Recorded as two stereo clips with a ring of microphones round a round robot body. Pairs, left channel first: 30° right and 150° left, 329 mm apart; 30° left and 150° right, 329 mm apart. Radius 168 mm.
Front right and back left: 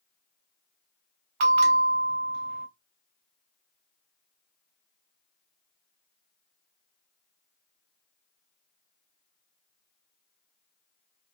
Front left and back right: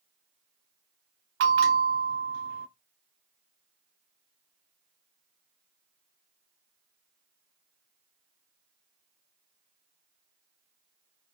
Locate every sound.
1.4 s a bell: 155° left, 0.9 m